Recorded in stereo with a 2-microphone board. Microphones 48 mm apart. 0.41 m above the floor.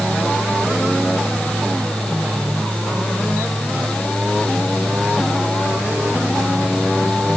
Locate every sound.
Only background noise.